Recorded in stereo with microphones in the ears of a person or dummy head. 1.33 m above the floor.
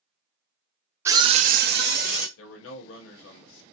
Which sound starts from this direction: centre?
A scream, at 1.1 s.